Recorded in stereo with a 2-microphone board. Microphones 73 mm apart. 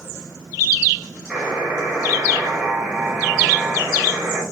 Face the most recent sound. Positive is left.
turn(degrees=-15)  # may be behind; listen again after turning